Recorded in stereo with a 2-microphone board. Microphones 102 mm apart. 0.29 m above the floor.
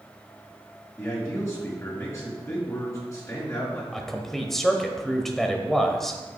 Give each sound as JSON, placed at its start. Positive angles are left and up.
{"t": 1.0, "sound": "a man speaking", "side_deg": 30, "distance_m": 4.0}
{"t": 3.9, "sound": "a man speaking", "side_deg": 5, "distance_m": 1.0}